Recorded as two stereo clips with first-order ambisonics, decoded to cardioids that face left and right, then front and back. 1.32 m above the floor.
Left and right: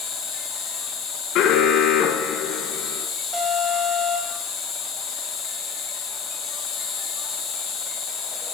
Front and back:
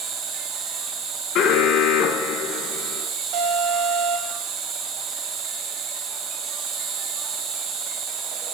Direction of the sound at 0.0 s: 140° left.